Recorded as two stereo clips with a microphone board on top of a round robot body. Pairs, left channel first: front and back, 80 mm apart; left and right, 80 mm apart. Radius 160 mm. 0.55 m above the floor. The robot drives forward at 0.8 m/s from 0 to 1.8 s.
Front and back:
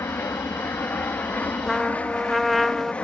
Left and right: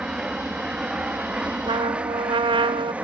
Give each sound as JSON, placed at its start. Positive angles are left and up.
{"t": 0.0, "sound": "an aircraft", "azimuth_deg": -20}
{"t": 1.7, "sound": "a trumpet", "azimuth_deg": -85}